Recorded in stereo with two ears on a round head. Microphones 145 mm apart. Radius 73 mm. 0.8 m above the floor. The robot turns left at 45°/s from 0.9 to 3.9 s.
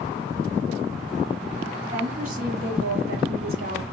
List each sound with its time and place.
1.9 s a woman speaking: 30° right, 2 m; by 3.8 s 120° right, 2 m